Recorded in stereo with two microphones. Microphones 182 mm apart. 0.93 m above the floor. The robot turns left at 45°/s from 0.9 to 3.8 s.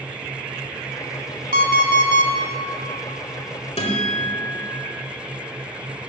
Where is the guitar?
35° left (ahead or behind), 1.5 m.